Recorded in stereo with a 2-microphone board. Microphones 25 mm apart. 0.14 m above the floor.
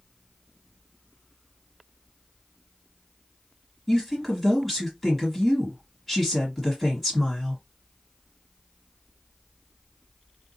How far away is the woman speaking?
About 2 m.